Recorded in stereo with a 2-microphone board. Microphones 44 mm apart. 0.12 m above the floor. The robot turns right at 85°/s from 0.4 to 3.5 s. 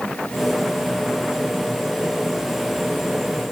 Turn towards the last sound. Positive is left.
No sound to turn to.